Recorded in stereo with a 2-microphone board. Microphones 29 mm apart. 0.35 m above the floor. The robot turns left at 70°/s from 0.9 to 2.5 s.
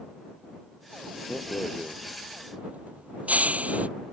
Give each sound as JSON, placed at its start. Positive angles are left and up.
{"t": 1.3, "sound": "a rattle", "side_deg": 30}